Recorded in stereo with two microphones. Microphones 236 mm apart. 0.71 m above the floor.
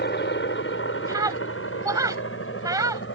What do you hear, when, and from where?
0.0 s a helicopter: 50° left (ahead or behind); by 3.1 s 55° left (ahead or behind)
1.1 s a scream: 15° right (ahead or behind)